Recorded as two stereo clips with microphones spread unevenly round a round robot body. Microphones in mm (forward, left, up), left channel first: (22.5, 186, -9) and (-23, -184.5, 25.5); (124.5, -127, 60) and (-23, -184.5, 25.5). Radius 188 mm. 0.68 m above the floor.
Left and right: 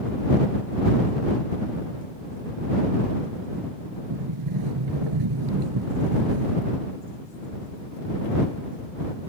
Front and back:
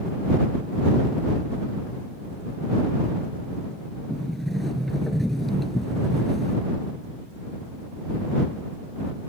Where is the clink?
No clink in this recording.